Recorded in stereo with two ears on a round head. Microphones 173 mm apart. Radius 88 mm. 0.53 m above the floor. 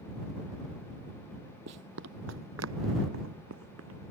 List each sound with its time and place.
1.7 s running footsteps: 60° right (ahead or behind); by 4.1 s 75° right (ahead or behind)